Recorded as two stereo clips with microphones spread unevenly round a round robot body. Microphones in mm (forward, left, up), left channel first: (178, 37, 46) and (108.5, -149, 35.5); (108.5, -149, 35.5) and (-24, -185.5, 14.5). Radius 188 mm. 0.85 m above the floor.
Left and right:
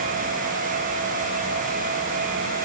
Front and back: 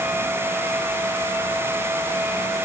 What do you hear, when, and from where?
Only background noise.